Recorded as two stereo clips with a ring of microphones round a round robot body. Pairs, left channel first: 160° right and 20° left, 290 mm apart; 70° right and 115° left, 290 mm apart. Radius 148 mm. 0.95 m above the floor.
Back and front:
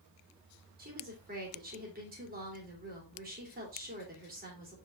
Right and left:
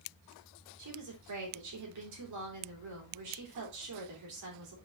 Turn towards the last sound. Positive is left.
turn(degrees=85)